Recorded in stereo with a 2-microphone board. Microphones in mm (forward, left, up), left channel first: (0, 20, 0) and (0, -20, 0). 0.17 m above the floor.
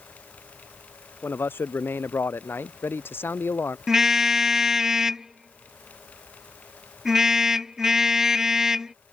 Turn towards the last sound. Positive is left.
turn(degrees=-10)  # may be behind; listen again after turning